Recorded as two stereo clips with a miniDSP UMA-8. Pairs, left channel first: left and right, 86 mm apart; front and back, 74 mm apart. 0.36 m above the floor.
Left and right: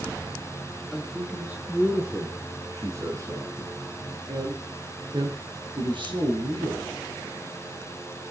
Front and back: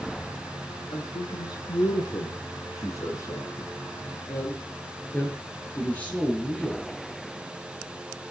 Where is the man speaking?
10° right, 5 m; by 6.9 s 75° right, 6.5 m.